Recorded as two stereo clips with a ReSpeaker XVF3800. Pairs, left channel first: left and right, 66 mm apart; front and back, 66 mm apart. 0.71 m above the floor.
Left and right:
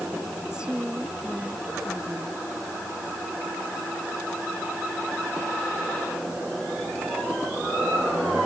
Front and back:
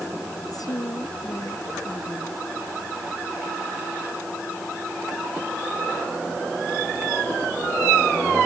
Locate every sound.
0.5 s a woman speaking: 15° right